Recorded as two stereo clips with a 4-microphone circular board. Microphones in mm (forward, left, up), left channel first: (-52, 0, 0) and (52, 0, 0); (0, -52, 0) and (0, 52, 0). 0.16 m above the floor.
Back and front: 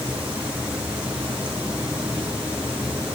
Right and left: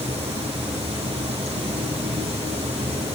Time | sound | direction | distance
0.0 | running water | 80° left | 2.5 m